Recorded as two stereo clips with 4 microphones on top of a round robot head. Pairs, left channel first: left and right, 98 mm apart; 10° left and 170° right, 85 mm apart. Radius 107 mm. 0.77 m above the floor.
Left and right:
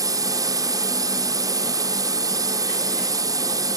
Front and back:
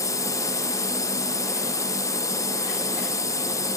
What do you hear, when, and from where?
0.0 s a drone: 40° right